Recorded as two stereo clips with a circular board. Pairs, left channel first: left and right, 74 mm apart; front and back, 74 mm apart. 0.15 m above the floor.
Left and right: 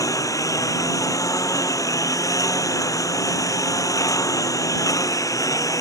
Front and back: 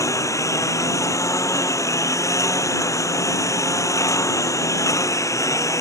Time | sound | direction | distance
0.0 | a lawn mower | 45° left | ?